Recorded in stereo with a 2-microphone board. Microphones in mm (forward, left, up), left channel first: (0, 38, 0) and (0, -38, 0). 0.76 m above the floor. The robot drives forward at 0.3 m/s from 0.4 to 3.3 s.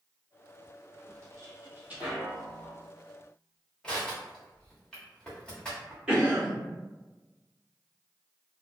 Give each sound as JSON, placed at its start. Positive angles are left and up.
{"t": 1.1, "sound": "footsteps", "side_deg": -50, "distance_m": 1.2}
{"t": 3.8, "sound": "crushing", "side_deg": 10, "distance_m": 1.1}
{"t": 6.1, "sound": "a cough", "side_deg": -10, "distance_m": 1.2}